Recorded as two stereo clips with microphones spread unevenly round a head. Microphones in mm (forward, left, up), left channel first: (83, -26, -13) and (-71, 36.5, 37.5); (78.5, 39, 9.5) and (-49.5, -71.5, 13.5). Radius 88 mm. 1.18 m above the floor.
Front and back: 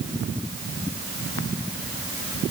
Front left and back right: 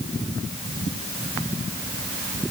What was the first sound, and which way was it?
Only background noise.